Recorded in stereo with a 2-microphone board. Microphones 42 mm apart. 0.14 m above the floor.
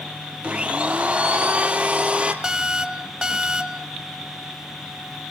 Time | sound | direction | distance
0.4 | a blender | 30° right (ahead or behind) | 1.6 m
2.4 | an alarm | 20° right (ahead or behind) | 1.0 m